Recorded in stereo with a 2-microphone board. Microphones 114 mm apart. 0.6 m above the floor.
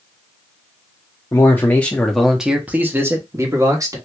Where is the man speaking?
25° left (ahead or behind), 0.8 m; by 4.0 s 30° right (ahead or behind), 1.1 m.